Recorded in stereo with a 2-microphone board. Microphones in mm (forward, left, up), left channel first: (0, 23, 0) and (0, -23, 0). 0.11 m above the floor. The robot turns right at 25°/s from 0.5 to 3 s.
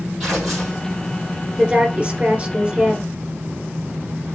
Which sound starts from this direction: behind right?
A woman speaking, at 1.6 s.